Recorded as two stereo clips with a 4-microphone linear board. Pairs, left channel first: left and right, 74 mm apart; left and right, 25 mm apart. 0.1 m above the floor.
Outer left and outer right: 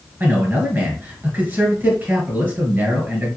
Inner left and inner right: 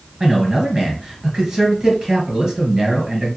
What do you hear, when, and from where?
0.2 s a man speaking: 25° right (ahead or behind), 1.3 m